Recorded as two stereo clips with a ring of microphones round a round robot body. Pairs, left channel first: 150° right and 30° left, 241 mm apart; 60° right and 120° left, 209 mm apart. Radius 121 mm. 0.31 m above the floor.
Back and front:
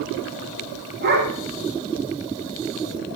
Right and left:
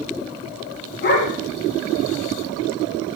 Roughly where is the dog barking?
Ahead right.